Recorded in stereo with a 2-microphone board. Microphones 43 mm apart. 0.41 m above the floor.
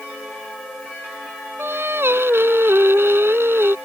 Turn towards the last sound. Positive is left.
turn(degrees=-70)  # may be behind; listen again after turning